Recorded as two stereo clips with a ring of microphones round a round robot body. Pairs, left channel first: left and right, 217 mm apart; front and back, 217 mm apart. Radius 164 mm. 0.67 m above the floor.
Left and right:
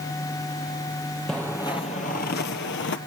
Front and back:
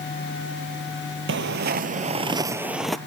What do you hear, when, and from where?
1.3 s footsteps: straight behind, 0.9 m; by 3.0 s 90° left, 0.9 m